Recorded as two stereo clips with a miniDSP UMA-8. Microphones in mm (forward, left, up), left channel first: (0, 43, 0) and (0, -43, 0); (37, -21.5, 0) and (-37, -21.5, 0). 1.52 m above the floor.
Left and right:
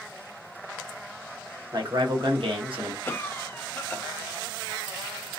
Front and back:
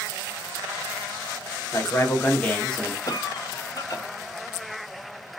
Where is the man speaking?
50° right, 1.2 m; by 3.0 s 85° right, 1.1 m.